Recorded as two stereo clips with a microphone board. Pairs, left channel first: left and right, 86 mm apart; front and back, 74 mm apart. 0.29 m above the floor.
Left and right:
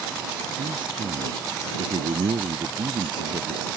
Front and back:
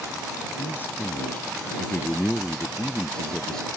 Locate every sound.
0.6 s a man speaking: 60° right; by 3.6 s 80° right